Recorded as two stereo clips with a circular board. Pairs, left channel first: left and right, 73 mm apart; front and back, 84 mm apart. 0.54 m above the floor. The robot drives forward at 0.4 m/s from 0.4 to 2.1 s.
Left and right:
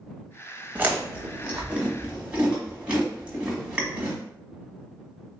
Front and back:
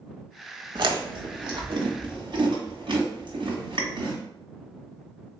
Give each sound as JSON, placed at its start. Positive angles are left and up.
{"t": 0.8, "sound": "chewing", "azimuth_deg": -155, "distance_m": 0.8}